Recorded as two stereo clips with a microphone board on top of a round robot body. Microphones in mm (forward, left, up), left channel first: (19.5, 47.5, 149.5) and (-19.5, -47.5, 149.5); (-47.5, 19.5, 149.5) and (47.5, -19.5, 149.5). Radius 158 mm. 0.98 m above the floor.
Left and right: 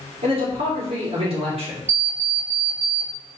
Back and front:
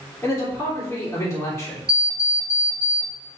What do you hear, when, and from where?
0.2 s a man speaking: 125° right, 3 m
1.9 s an alarm clock: 105° right, 1.6 m